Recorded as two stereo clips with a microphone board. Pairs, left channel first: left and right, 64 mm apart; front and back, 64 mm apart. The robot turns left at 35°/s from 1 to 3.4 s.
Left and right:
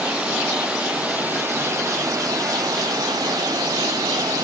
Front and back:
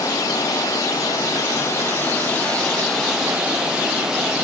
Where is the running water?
20° right, 5.5 m; by 4.5 s 100° right, 5.5 m.